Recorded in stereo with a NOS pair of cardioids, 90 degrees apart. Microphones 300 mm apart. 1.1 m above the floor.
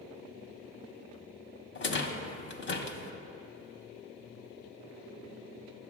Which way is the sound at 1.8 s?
40° left.